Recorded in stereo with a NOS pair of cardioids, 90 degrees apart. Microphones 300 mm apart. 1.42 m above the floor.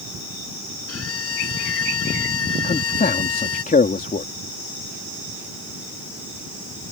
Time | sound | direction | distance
0.9 | a violin | 50° left | ?
2.6 | a man speaking | 25° left | ?